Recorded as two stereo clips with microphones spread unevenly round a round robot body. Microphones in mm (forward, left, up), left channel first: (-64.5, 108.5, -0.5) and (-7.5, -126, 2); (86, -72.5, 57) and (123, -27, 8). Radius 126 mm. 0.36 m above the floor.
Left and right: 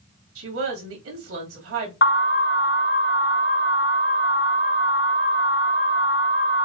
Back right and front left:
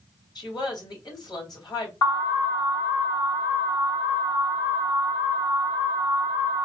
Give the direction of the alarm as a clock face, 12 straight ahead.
7 o'clock.